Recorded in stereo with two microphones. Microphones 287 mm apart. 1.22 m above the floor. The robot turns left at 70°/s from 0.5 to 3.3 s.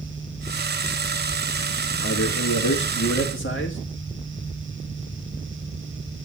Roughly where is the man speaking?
Behind left.